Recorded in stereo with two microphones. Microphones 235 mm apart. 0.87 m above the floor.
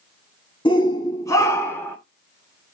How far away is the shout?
About 1.6 m.